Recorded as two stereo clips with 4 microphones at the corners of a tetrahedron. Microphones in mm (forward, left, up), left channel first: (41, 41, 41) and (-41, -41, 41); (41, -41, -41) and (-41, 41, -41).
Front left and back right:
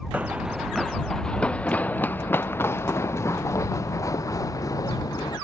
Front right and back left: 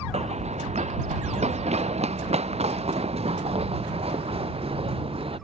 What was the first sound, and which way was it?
Running footsteps, 150° left.